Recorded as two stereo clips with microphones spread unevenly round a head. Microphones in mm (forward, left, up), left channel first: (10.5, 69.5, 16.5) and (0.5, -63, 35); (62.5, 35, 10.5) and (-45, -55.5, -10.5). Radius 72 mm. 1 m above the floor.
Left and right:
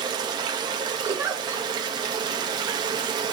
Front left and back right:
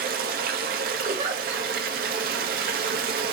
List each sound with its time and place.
0.0 s running water: 155° right, 1.1 m
1.1 s a giggle: 170° right, 1.7 m